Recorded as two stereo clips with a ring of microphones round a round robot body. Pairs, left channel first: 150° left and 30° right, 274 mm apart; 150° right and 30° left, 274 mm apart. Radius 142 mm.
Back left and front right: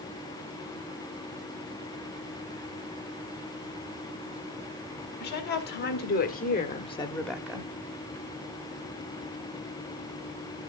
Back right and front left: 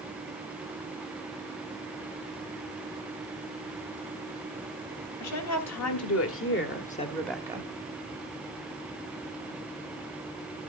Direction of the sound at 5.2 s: 160° right.